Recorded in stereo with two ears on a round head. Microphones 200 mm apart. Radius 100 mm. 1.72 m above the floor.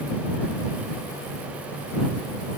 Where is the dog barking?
No dog barking in this recording.